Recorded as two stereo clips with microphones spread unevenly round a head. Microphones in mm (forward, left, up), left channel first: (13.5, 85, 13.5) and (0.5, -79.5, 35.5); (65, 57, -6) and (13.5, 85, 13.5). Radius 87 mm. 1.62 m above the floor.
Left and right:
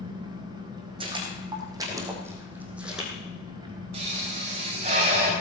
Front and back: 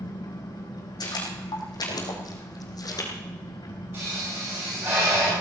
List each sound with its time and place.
0.0 s an engine running: 30° right, 4.5 m
1.0 s footsteps: 40° right, 4.5 m; by 3.1 s 10° right, 3.5 m
3.9 s a pop: 150° right, 4 m